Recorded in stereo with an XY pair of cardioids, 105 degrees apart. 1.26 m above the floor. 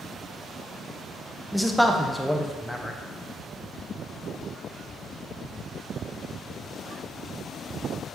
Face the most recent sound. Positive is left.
turn(degrees=0)